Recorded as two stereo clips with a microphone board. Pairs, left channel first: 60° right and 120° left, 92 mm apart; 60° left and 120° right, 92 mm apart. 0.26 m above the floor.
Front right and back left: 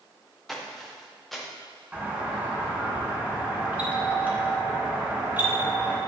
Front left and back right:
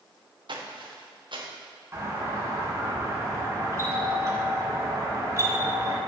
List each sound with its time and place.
0.5 s footsteps: 150° right, 1.8 m
1.9 s a doorbell: 170° right, 3 m